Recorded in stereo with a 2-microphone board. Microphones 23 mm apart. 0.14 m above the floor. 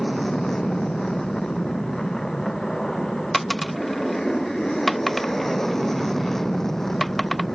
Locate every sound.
0.0 s an aircraft: 20° left (ahead or behind)
3.3 s a dropped coin: 5° left (ahead or behind)